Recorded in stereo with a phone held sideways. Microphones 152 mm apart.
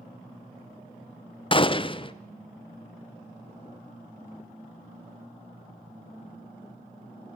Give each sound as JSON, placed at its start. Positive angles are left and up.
{"t": 1.5, "sound": "a gunshot", "side_deg": 35, "distance_m": 0.5}